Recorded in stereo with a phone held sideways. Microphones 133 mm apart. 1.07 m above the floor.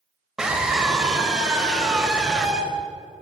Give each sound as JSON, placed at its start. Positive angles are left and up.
{"t": 0.4, "sound": "a scream", "side_deg": -5, "distance_m": 4.5}